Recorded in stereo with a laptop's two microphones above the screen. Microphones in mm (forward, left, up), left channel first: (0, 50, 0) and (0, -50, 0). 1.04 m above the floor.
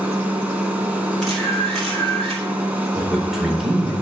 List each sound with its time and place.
0.0 s a machine running: 15° right (ahead or behind), 2 m
1.2 s a camera shutter: 5° left (ahead or behind), 5.5 m
3.0 s a man speaking: 5° right (ahead or behind), 3.5 m